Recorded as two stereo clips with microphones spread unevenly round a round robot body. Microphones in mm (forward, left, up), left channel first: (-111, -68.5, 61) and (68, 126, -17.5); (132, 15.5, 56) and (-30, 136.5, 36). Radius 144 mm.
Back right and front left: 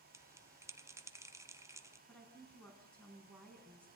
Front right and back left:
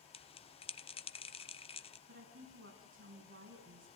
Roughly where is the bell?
Ahead.